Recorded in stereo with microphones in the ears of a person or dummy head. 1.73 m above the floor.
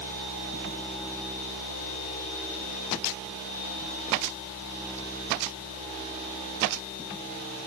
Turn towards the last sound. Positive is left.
No sound to turn to.